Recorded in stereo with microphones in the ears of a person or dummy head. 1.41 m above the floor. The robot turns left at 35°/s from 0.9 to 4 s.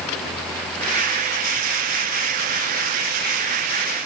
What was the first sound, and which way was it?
Only background noise.